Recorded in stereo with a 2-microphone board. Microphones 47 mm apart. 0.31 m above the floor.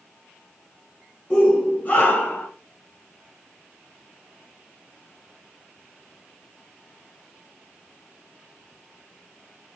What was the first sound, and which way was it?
A shout, 25° left (ahead or behind).